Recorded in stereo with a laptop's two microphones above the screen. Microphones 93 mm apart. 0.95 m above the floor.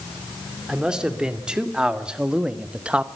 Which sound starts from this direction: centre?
A man speaking, at 0.7 s.